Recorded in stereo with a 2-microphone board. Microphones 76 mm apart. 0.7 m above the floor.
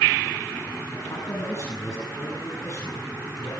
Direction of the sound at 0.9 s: 45° left (ahead or behind).